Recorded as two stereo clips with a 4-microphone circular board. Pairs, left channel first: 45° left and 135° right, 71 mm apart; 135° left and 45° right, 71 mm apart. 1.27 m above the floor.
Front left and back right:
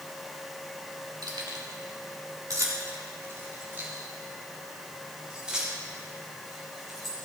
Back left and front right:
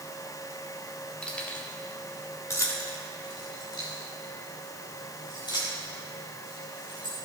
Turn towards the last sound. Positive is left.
turn(degrees=135)